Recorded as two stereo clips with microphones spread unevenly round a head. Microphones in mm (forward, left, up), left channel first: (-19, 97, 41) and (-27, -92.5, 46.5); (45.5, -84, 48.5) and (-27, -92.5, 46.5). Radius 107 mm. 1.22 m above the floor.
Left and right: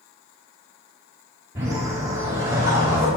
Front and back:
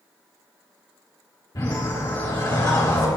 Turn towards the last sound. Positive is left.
turn(degrees=-20)